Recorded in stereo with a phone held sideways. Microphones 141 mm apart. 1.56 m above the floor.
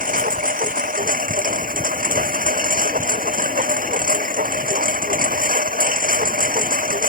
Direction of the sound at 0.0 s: 75° right (ahead or behind).